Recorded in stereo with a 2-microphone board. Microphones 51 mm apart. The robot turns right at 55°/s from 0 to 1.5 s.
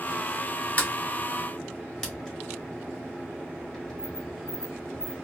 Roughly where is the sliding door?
Left.